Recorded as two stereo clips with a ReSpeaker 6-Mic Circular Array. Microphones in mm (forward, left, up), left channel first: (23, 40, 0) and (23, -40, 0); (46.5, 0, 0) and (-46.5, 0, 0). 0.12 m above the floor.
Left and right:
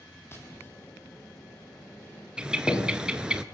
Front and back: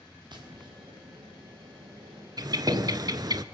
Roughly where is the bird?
Behind.